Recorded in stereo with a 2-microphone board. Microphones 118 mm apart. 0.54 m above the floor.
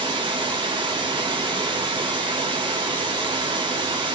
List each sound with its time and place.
0.0 s running water: 40° right (ahead or behind), 1.3 m